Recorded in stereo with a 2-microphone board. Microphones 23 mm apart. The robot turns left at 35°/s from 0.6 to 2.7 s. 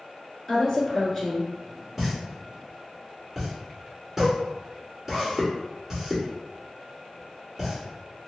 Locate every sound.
0.5 s a woman speaking: 25° left, 1.2 m; by 1.5 s 10° right, 1.2 m
2.0 s a pop: 10° right (ahead or behind), 1.5 m; by 8.3 s 20° right (ahead or behind), 1.5 m